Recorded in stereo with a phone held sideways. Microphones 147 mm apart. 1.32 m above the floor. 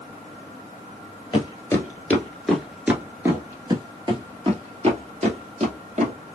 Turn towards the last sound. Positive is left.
turn(degrees=-55)  # may be behind; listen again after turning